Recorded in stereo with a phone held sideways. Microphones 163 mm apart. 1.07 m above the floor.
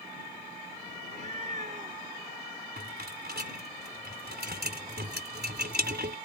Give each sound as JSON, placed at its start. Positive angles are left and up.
{"t": 1.0, "sound": "a cat meowing", "side_deg": -45}
{"t": 2.8, "sound": "a rattle", "side_deg": -80}